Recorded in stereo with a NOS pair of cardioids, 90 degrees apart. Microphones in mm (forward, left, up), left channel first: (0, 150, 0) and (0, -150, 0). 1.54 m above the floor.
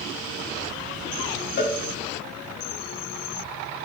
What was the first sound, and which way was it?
A cowbell, 45° left.